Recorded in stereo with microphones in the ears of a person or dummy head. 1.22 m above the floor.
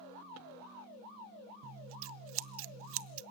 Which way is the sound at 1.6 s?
60° right (ahead or behind).